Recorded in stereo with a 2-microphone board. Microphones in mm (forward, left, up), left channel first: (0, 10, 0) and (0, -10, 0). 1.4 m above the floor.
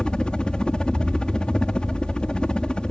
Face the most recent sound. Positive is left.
turn(degrees=55)  # may be behind; listen again after turning